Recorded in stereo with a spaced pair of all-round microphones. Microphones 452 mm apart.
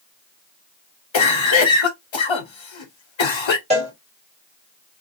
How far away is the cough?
About 0.7 m.